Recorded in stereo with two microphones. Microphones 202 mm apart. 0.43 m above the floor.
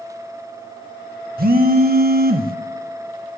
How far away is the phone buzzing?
About 0.6 m.